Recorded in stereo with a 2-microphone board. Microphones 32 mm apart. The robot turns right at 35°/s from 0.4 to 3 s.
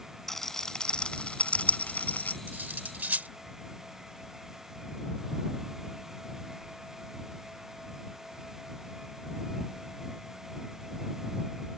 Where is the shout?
No shout in this recording.